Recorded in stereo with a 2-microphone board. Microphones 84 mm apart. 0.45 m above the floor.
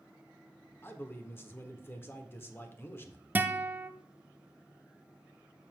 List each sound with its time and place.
0.8 s a man speaking: 25° left (ahead or behind), 0.9 m
3.4 s a guitar: 20° right (ahead or behind), 0.5 m